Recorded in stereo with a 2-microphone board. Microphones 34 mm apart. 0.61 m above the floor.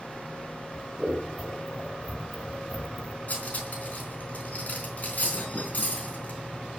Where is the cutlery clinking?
50° left (ahead or behind), 4 m.